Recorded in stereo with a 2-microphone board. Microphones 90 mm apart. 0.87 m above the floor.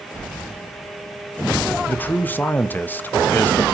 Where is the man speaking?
20° left (ahead or behind), 0.6 m.